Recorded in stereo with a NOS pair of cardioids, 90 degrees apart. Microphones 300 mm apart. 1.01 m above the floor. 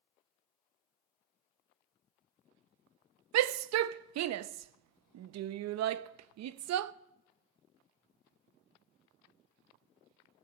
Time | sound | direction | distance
3.3 | a shout | 65° right | 0.7 m